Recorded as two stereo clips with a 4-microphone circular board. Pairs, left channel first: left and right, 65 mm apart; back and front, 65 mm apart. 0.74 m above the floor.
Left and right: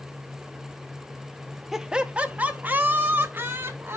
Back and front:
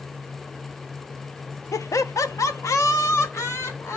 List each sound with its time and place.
1.7 s laughter: 175° right, 0.8 m; by 4.0 s 140° right, 2 m